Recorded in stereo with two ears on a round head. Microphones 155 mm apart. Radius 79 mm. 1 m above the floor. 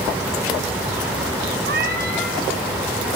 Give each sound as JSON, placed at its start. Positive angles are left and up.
{"t": 1.7, "sound": "a cat meowing", "side_deg": -60, "distance_m": 2.5}